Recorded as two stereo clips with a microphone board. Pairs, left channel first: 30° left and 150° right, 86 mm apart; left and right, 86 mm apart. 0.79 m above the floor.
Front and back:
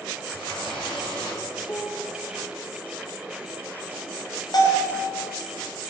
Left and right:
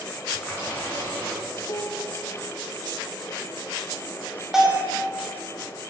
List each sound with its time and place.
0.3 s a running tap: 20° left, 6.5 m
1.6 s a piano: 100° left, 1.4 m
4.5 s a bell: 5° right, 3 m